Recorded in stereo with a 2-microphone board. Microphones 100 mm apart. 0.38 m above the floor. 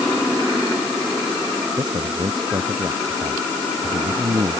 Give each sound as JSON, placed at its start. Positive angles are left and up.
{"t": 1.8, "sound": "a man speaking", "side_deg": -45}